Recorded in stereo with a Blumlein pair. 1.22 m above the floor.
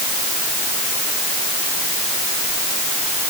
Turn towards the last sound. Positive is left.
No sound to turn to.